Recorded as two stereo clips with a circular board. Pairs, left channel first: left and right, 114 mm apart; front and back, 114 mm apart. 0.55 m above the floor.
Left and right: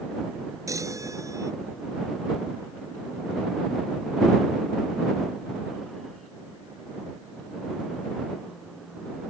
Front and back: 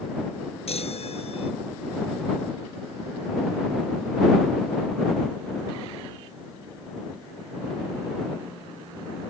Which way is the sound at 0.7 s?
30° right.